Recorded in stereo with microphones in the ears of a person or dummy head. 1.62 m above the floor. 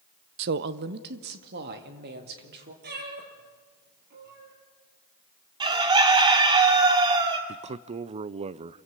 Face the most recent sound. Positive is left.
turn(degrees=-35)  # may be behind; listen again after turning